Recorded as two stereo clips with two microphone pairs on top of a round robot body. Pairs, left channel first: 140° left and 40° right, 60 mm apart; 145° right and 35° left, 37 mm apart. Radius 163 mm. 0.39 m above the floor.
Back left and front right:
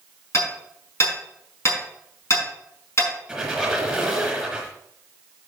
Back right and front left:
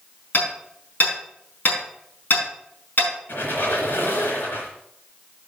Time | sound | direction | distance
0.3 | hammering | straight behind | 5.5 m
3.3 | a squeak | 130° right | 3.5 m